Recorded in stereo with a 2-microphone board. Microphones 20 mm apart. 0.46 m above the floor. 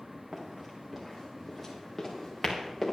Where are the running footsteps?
15° right (ahead or behind), 4.5 m; by 2.9 s 10° left (ahead or behind), 4.5 m.